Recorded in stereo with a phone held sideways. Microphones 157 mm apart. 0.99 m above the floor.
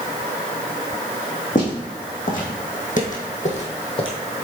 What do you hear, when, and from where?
1.6 s footsteps: 55° left (ahead or behind), 2.5 m; by 4.1 s 35° left (ahead or behind), 1.6 m